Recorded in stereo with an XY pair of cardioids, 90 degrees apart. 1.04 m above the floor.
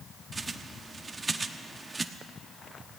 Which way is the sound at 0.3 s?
35° right.